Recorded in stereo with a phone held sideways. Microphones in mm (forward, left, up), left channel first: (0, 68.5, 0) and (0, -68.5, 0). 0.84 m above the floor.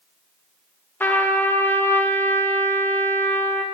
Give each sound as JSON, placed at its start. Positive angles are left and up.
{"t": 1.0, "sound": "a trumpet", "side_deg": 15, "distance_m": 0.5}